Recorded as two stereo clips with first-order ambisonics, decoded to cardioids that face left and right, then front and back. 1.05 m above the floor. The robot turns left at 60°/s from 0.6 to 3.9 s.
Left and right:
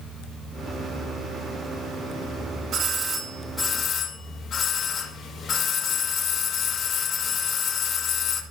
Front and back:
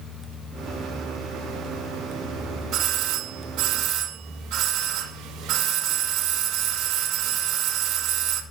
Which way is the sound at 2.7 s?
135° right.